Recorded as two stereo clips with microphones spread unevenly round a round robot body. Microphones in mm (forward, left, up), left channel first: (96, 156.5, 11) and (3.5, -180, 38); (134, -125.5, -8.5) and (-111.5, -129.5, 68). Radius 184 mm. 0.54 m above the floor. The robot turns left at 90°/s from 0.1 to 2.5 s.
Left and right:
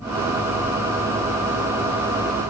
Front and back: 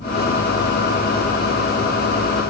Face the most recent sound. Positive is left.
No sound to turn to.